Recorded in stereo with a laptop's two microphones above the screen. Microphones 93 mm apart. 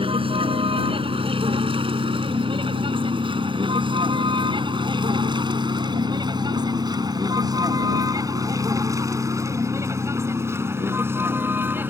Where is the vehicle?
85° right; by 11.9 s 20° right (ahead or behind).